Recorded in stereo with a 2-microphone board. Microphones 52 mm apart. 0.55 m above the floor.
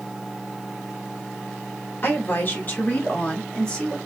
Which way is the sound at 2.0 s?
45° left (ahead or behind).